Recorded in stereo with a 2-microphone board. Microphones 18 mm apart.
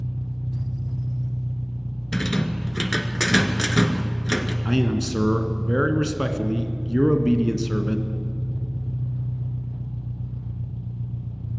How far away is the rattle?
About 1.2 m.